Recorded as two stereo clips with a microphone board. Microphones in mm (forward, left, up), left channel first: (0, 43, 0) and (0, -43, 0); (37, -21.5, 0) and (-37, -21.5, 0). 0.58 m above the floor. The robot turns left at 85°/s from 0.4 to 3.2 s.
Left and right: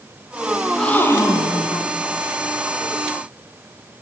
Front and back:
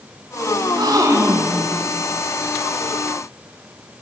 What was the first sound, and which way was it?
A gasp, 175° right.